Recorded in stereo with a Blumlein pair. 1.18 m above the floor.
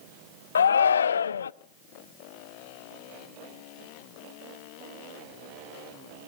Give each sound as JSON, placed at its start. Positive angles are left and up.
{"t": 0.6, "sound": "a shout", "azimuth_deg": 70, "distance_m": 0.5}